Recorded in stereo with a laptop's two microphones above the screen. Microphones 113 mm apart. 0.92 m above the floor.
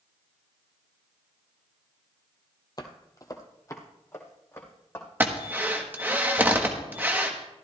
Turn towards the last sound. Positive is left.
turn(degrees=-15)  # may be behind; listen again after turning